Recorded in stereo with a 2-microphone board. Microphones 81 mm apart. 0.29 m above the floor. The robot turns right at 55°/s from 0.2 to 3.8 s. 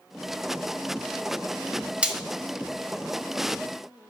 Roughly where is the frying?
Centre.